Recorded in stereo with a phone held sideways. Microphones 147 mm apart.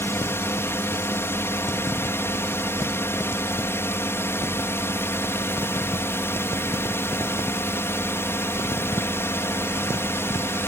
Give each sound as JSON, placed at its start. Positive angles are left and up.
{"t": 0.0, "sound": "a drone", "side_deg": 15}